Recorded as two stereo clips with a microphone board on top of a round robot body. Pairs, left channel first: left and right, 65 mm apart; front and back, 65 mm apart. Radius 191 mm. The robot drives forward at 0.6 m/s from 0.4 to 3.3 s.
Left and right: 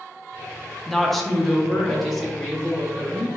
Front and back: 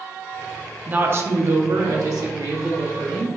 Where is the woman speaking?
175° left, 0.7 m; by 3.3 s straight behind, 1.8 m.